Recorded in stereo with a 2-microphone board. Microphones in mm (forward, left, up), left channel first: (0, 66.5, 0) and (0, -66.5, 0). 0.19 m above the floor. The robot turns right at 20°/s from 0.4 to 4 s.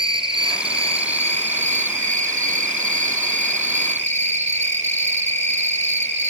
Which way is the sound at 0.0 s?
135° right.